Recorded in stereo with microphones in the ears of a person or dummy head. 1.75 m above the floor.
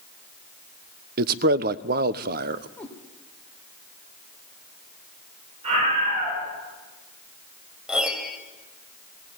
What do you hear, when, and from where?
1.2 s a man speaking: 50° right (ahead or behind), 0.9 m
2.8 s a cat meowing: 15° left (ahead or behind), 3 m
5.6 s a scream: 35° right (ahead or behind), 10 m
7.9 s a piano: centre (ahead or behind), 2.5 m